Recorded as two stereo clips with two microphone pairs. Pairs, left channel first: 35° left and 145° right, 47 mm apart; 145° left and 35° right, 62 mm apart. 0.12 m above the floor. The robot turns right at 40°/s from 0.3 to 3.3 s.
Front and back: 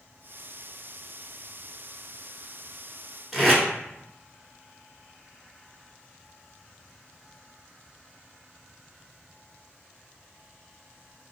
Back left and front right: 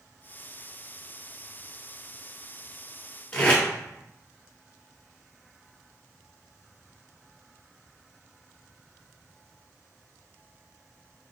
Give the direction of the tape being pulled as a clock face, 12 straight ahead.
8 o'clock.